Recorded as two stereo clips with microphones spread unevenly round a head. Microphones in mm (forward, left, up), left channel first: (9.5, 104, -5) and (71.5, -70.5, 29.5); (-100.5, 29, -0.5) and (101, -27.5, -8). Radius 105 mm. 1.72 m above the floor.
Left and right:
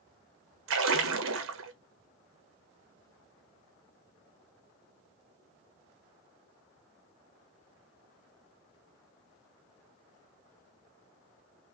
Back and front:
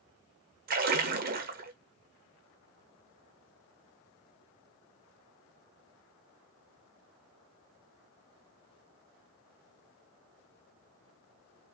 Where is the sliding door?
I don't hear a sliding door.